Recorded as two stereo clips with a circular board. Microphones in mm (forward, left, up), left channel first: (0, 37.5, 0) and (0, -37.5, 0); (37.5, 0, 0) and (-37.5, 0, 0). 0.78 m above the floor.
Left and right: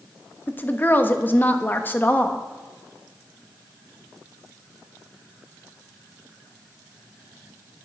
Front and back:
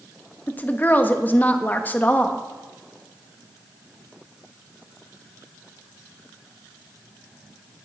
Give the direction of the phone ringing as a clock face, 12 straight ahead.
I don't hear a phone ringing.